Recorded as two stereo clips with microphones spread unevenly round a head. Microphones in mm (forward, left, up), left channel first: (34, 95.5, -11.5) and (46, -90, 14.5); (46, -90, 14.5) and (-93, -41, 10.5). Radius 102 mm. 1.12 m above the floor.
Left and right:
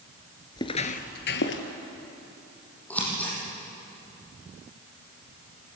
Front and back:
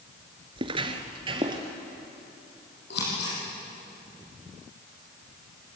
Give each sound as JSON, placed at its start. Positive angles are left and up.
{"t": 0.6, "sound": "footsteps", "azimuth_deg": 160, "distance_m": 1.2}
{"t": 2.9, "sound": "scissors", "azimuth_deg": 10, "distance_m": 7.0}